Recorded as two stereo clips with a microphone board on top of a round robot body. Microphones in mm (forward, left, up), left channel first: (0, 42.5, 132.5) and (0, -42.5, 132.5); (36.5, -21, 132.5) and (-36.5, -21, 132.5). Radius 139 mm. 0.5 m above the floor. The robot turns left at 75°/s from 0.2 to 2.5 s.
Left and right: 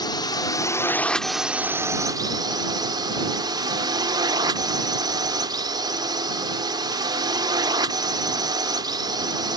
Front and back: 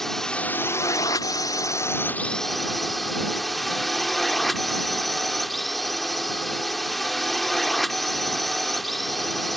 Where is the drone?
85° left; by 9.6 s 90° right.